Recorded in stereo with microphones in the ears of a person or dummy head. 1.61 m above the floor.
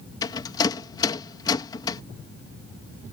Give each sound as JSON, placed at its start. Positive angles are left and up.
{"t": 0.2, "sound": "a rattle", "side_deg": 20}